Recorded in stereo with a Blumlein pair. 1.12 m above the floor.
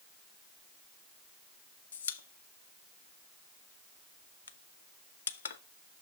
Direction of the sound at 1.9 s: 65° left.